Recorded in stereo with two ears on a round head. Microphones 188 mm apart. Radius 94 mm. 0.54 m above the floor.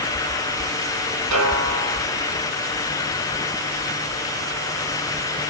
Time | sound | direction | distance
1.3 | a snare drum | 75° right (ahead or behind) | 7 m